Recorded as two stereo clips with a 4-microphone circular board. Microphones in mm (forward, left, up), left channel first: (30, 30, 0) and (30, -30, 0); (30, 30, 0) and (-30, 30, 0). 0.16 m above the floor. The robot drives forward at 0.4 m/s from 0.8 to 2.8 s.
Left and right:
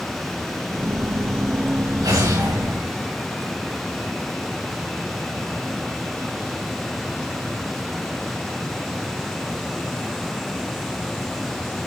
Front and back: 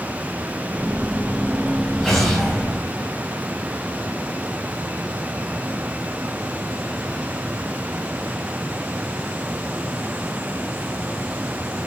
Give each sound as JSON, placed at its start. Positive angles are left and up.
{"t": 2.0, "sound": "an explosion", "azimuth_deg": -80, "distance_m": 6.5}